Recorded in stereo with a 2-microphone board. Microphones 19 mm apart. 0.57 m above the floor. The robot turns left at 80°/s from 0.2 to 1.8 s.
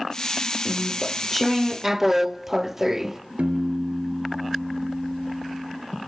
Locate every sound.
0.7 s chewing: 65° left, 0.6 m; by 3.2 s 30° right, 0.6 m
3.4 s a piano: 85° right, 3 m